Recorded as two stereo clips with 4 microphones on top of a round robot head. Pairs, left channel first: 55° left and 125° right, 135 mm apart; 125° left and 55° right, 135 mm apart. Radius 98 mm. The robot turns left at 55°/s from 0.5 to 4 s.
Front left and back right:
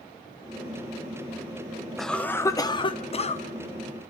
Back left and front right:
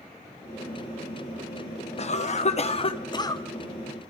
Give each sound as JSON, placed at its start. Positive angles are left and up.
{"t": 2.0, "sound": "a cough", "azimuth_deg": 145, "distance_m": 1.6}